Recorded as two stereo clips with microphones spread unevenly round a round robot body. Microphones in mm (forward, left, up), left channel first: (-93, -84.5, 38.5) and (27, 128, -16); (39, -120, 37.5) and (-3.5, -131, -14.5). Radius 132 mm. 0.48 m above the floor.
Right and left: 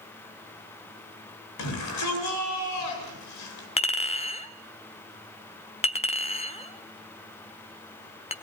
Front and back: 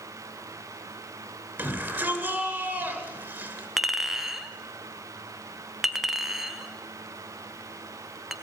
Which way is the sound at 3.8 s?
170° left.